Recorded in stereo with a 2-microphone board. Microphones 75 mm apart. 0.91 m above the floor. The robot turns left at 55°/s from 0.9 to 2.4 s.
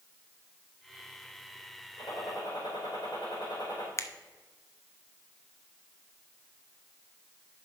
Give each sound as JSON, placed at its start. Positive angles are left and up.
{"t": 2.0, "sound": "a gunshot", "side_deg": 50, "distance_m": 4.5}
{"t": 4.0, "sound": "a finger snap", "side_deg": 40, "distance_m": 0.5}